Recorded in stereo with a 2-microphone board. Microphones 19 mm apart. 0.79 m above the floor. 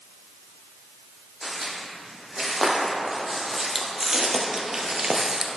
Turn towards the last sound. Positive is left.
turn(degrees=-30)  # may be behind; listen again after turning